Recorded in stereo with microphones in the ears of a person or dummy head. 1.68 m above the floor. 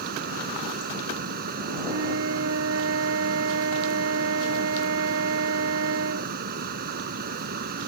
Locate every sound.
0.0 s a fan: 50° right (ahead or behind)
1.9 s a flute: 75° right (ahead or behind)